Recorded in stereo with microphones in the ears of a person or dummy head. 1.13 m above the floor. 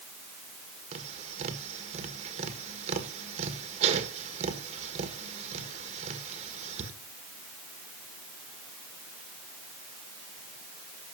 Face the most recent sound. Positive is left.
turn(degrees=-35)  # may be behind; listen again after turning